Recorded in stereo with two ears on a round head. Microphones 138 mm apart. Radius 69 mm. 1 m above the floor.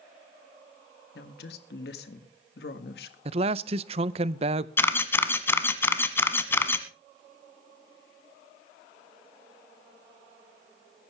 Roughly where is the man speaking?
Right.